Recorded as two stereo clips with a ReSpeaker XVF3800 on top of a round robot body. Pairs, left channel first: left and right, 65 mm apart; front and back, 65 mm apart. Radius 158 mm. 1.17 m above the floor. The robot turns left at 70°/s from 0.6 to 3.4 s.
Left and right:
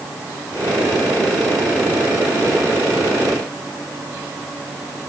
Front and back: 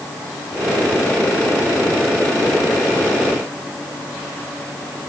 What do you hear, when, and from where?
Only background noise.